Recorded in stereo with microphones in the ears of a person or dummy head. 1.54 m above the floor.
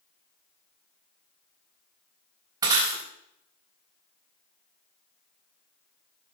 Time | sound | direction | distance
2.6 | breaking glass | 25° right (ahead or behind) | 3.5 m